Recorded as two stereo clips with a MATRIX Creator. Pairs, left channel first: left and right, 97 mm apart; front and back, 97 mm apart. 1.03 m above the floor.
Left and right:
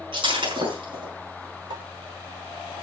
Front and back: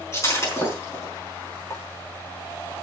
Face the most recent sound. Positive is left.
turn(degrees=-55)